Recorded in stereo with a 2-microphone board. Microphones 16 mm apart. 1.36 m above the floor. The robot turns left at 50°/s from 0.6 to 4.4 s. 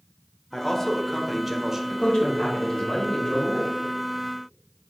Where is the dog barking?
No dog barking in this recording.